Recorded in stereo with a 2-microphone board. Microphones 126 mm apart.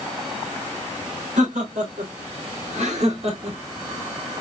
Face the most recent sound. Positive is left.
turn(degrees=-50)  # may be behind; listen again after turning